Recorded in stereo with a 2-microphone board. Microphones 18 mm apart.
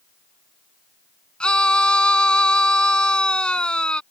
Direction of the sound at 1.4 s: 55° left (ahead or behind).